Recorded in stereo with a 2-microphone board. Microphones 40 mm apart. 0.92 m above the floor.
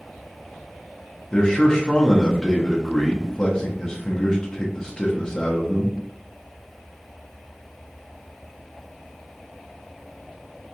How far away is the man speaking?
About 0.6 m.